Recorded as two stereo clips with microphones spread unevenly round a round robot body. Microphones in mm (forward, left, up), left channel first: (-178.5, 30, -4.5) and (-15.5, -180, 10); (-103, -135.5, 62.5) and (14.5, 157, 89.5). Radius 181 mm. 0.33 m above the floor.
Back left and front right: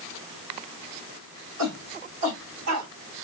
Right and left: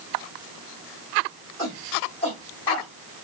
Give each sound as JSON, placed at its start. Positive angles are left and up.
{"t": 1.6, "sound": "a shout", "azimuth_deg": -55, "distance_m": 3.5}